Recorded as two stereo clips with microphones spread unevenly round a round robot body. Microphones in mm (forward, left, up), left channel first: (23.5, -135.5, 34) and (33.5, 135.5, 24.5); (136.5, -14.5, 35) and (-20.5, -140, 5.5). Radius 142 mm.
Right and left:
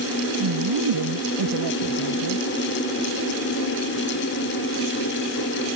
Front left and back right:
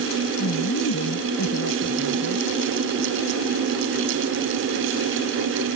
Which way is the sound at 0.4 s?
80° left.